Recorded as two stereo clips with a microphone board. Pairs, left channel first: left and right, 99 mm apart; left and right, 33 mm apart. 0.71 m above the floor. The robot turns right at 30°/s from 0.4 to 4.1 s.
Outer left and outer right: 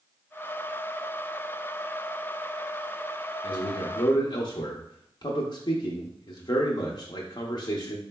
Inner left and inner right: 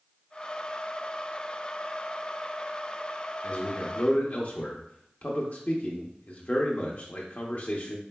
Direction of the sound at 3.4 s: 45° left (ahead or behind).